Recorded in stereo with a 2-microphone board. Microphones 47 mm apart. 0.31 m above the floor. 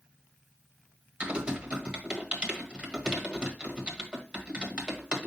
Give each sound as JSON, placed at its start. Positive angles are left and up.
{"t": 1.2, "sound": "typing on a keyboard", "side_deg": -20, "distance_m": 1.4}